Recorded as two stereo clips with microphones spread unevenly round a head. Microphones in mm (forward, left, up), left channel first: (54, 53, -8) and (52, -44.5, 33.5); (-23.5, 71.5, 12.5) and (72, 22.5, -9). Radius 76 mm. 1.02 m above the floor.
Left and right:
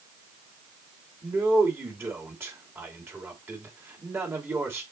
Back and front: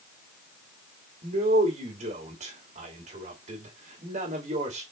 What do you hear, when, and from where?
1.2 s a man speaking: 25° right, 3 m